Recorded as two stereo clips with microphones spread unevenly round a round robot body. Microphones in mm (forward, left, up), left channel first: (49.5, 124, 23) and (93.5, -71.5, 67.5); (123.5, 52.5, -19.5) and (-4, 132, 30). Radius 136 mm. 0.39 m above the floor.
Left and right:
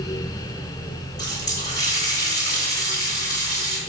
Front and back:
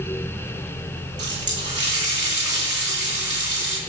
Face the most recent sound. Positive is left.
turn(degrees=170)